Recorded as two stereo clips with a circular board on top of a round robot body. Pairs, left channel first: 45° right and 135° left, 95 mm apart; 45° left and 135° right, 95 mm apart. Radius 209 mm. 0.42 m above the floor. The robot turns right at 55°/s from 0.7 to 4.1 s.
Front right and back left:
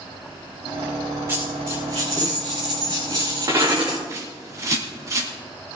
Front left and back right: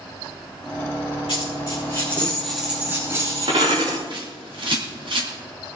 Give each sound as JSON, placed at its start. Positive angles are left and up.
{"t": 1.3, "sound": "a dropped coin", "azimuth_deg": 70, "distance_m": 6.5}
{"t": 4.1, "sound": "a bird", "azimuth_deg": -170, "distance_m": 3.5}